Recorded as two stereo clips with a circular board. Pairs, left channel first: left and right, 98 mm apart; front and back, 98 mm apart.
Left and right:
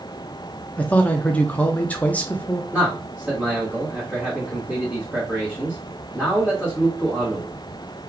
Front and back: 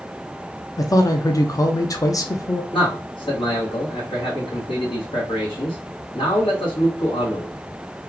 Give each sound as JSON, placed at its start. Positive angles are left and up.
{"t": 0.8, "sound": "a man speaking", "azimuth_deg": 25, "distance_m": 0.5}
{"t": 2.7, "sound": "a man speaking", "azimuth_deg": -10, "distance_m": 1.6}